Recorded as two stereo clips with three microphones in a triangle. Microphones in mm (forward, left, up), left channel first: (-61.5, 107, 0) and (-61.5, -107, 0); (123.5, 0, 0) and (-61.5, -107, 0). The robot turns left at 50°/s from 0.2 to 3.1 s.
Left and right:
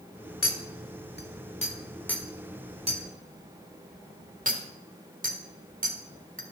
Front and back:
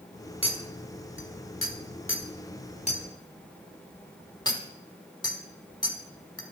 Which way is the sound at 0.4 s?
95° left.